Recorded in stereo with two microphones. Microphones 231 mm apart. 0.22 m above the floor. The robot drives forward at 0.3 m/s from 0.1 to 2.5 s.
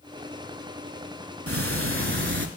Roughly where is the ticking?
Right.